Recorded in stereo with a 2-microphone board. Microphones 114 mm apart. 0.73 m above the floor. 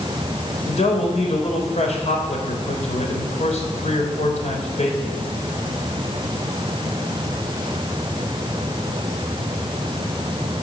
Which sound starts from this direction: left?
A man speaking, at 0.7 s.